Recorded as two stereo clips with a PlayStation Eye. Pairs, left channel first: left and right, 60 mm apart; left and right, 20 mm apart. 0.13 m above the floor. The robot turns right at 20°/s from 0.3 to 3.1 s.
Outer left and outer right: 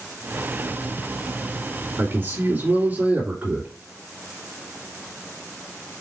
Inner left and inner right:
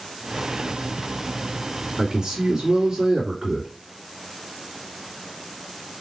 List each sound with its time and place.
2.0 s a man speaking: 40° right (ahead or behind), 2 m; by 3.7 s 30° right (ahead or behind), 2 m